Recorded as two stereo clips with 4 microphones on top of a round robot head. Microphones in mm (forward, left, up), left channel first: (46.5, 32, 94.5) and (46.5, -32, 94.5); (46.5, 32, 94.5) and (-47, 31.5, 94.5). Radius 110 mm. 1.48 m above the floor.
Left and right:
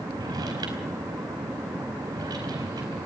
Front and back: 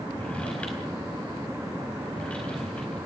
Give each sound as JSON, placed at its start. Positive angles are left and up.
{"t": 0.1, "sound": "a drawer", "azimuth_deg": -80, "distance_m": 4.5}